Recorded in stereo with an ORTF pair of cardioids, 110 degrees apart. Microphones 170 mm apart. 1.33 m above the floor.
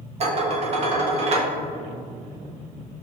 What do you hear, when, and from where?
0.2 s dishes clattering: 40° right, 1.1 m